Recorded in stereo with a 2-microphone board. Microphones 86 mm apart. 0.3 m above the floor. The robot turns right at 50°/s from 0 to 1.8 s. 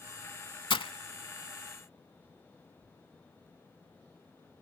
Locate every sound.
0.7 s breaking glass: 75° left (ahead or behind); by 0.9 s 85° left